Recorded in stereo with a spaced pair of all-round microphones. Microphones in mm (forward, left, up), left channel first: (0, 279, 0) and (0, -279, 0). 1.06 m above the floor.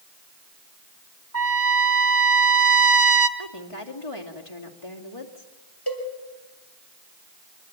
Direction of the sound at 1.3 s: 60° left (ahead or behind).